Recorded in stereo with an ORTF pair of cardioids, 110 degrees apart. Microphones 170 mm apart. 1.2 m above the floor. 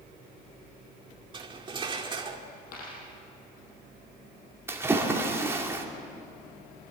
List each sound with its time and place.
1.3 s cutlery clinking: 30° right, 2.0 m
2.7 s a dropped coin: 60° left, 7 m
4.7 s a splash: 15° right, 2.5 m